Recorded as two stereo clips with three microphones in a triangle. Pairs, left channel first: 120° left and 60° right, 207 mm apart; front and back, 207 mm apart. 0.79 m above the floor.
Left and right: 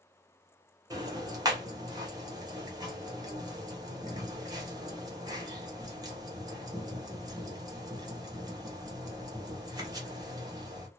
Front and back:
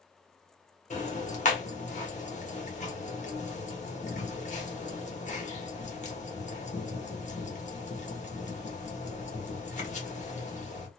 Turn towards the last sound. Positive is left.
turn(degrees=0)